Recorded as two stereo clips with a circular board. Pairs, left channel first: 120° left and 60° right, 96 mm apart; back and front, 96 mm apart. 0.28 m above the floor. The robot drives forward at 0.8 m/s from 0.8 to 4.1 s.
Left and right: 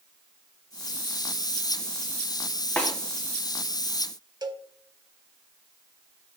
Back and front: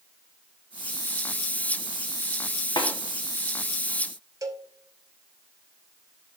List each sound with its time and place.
2.8 s a snare drum: 170° right, 1.5 m
4.4 s a cowbell: 35° right, 0.7 m